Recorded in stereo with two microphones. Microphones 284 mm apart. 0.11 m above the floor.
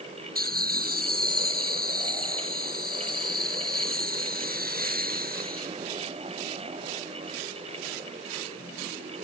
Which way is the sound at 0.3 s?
35° right (ahead or behind).